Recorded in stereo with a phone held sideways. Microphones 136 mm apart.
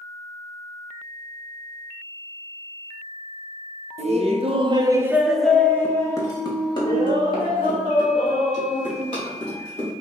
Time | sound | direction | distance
4.0 | laughter | 55° right (ahead or behind) | 0.7 m